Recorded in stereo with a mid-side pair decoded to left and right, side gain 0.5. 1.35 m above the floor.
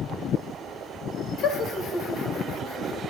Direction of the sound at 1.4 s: 65° left.